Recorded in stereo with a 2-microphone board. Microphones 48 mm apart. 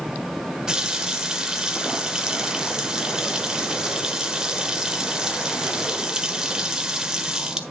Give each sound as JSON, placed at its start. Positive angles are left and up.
{"t": 0.7, "sound": "a running tap", "side_deg": -15, "distance_m": 1.4}